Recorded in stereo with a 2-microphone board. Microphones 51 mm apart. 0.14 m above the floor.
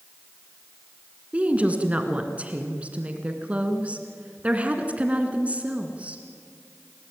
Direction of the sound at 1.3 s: 25° right (ahead or behind).